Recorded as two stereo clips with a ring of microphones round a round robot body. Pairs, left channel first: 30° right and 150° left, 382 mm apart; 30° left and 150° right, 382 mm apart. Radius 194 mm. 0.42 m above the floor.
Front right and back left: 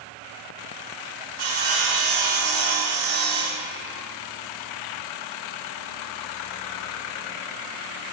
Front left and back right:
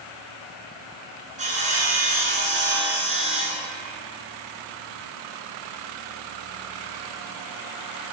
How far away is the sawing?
About 2 m.